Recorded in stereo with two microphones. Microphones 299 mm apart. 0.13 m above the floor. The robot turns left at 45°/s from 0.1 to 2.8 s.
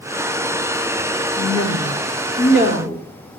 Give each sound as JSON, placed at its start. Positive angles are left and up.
{"t": 1.4, "sound": "a woman speaking", "azimuth_deg": 95, "distance_m": 2.5}